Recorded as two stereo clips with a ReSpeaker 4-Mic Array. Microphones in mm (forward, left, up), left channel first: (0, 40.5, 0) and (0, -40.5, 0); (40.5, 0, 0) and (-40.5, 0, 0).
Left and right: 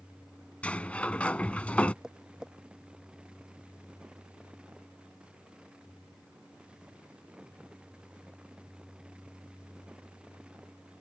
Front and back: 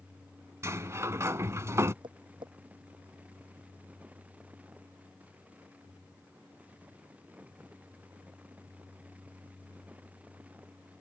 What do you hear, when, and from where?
0.6 s a sliding door: 155° left
2.0 s tapping: 175° right